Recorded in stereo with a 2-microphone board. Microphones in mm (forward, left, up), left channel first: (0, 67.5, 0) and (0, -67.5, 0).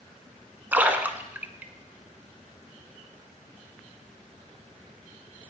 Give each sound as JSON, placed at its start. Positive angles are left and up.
{"t": 0.7, "sound": "a splash", "side_deg": -15, "distance_m": 0.8}